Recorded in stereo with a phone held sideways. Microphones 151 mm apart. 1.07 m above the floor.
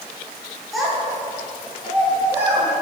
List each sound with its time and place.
0.7 s a child speaking: centre (ahead or behind), 1.8 m; by 2.7 s 15° right (ahead or behind), 2.5 m